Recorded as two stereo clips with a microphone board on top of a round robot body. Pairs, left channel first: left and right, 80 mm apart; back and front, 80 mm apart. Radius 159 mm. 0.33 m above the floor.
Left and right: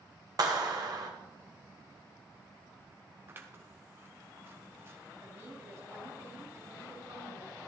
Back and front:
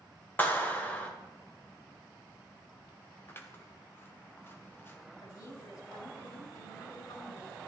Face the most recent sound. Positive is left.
turn(degrees=-140)